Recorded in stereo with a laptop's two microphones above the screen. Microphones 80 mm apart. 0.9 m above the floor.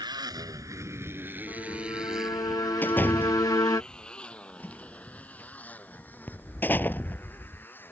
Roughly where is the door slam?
Left.